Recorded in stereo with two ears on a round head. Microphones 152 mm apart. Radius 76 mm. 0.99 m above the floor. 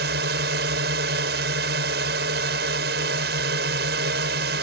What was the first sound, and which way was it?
A drone, 70° right (ahead or behind).